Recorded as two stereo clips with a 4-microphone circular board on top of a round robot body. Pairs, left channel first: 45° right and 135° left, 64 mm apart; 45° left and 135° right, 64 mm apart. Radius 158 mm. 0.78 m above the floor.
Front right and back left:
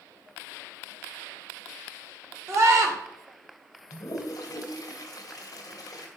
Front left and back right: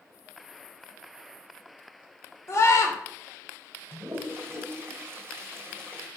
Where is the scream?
90° left, 3.5 m.